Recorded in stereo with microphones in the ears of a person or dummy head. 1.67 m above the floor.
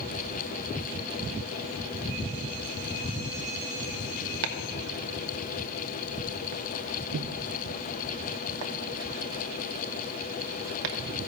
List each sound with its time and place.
4.4 s chopping: 65° right (ahead or behind), 1.0 m